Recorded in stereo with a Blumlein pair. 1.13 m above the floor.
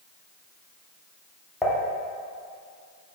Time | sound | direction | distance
1.6 | dishes clattering | 10° left | 1.7 m